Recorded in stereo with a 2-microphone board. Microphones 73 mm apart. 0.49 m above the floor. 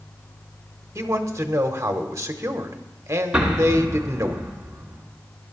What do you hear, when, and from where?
0.9 s a man speaking: 40° right (ahead or behind), 1.0 m
3.3 s an explosion: 15° right (ahead or behind), 1.8 m